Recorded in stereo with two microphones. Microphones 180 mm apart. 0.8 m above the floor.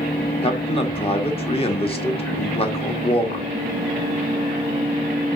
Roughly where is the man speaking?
Left.